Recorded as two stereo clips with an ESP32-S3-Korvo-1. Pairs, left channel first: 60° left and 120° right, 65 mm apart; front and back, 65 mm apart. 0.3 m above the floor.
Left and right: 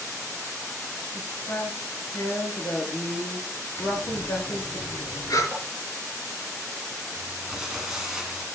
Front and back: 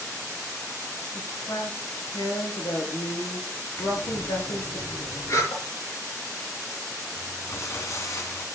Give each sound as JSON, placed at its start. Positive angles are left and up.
{"t": 1.1, "sound": "a woman speaking", "azimuth_deg": 10, "distance_m": 6.0}
{"t": 3.8, "sound": "breathing", "azimuth_deg": 40, "distance_m": 5.0}
{"t": 5.5, "sound": "tapping", "azimuth_deg": -30, "distance_m": 4.0}
{"t": 7.2, "sound": "crumpling", "azimuth_deg": -40, "distance_m": 2.5}